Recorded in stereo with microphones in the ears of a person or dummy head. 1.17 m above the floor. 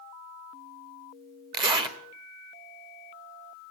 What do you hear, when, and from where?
1.5 s a zipper: 20° right (ahead or behind), 1.6 m